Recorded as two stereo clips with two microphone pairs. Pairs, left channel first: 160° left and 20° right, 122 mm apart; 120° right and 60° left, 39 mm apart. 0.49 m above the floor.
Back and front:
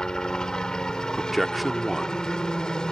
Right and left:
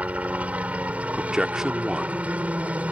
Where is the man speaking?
70° left.